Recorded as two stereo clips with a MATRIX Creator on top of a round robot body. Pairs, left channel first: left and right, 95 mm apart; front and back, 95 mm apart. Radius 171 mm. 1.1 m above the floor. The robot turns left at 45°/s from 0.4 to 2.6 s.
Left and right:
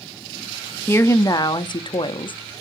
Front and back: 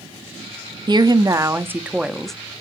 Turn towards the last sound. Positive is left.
turn(degrees=75)